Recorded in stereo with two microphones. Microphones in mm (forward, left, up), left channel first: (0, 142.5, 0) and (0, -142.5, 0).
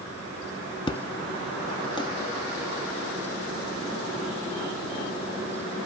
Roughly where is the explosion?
Centre.